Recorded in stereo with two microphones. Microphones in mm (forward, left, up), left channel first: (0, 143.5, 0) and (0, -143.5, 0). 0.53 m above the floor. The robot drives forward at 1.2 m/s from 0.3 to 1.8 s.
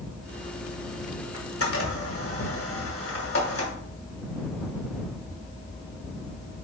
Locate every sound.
1.3 s a camera shutter: 55° left (ahead or behind), 1.6 m; by 3.7 s 45° left (ahead or behind), 1.8 m